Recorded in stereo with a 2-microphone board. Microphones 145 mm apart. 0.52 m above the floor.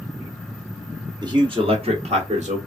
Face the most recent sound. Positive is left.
turn(degrees=-55)  # may be behind; listen again after turning